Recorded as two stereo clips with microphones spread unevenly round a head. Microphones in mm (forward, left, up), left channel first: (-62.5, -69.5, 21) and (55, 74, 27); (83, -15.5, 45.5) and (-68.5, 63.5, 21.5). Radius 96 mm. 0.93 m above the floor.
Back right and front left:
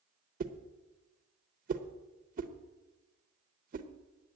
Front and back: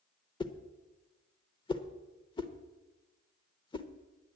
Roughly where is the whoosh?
Ahead left.